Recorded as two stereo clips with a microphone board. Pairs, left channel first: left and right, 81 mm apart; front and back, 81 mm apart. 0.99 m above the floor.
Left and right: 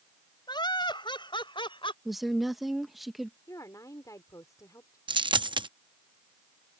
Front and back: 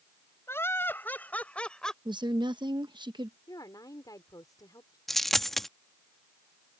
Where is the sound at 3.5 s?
40° left.